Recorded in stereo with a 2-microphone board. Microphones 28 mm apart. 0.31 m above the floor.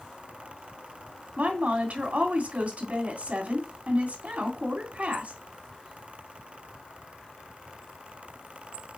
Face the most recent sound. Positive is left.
turn(degrees=-55)  # may be behind; listen again after turning